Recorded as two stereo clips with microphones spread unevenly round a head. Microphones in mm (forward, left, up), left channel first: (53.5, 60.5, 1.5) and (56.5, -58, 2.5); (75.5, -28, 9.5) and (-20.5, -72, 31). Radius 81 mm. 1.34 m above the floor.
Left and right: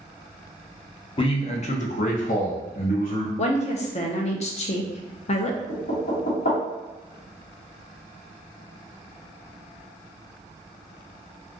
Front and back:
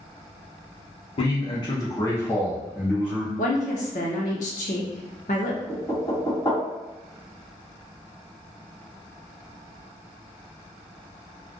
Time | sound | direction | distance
1.2 | a man speaking | 50° left | 0.8 m
3.4 | a woman speaking | 65° left | 0.7 m
5.7 | knocking | 100° left | 1.5 m